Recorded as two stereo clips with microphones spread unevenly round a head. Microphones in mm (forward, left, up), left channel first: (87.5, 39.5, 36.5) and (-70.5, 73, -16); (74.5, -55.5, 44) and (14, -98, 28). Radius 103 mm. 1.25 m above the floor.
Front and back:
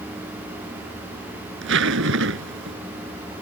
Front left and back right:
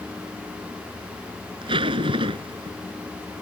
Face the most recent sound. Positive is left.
turn(degrees=-175)